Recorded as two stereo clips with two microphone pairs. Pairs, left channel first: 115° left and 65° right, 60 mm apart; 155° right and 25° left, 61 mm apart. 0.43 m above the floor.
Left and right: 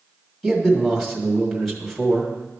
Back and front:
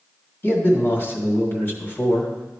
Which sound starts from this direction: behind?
A man speaking, at 0.4 s.